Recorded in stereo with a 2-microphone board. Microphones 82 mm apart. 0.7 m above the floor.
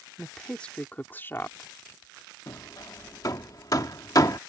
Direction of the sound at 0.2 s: 5° left (ahead or behind).